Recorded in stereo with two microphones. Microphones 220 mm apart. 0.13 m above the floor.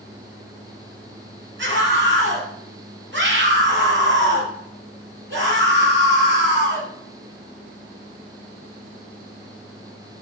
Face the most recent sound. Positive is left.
turn(degrees=-50)  # may be behind; listen again after turning